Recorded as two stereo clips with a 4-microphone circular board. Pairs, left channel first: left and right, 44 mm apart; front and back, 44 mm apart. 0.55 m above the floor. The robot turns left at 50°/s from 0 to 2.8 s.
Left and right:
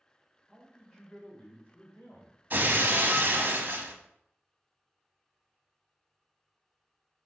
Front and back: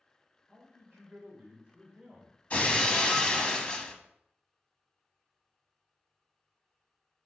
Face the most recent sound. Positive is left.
turn(degrees=-70)